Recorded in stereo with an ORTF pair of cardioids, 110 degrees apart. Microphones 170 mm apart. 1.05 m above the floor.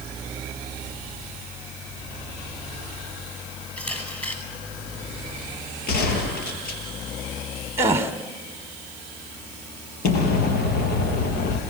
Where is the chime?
I don't hear a chime.